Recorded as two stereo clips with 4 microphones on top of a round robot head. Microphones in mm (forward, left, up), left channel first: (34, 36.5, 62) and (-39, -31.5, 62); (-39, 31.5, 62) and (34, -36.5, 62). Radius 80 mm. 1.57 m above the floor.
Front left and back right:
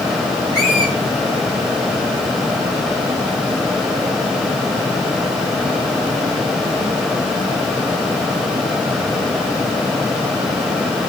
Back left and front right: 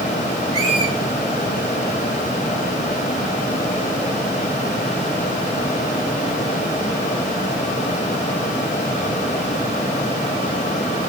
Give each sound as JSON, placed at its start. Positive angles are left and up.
{"t": 0.5, "sound": "a squeak", "azimuth_deg": -5, "distance_m": 7.0}